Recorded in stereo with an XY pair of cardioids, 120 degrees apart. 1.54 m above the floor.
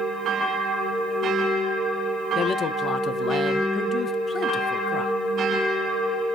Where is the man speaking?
45° left, 1.1 m.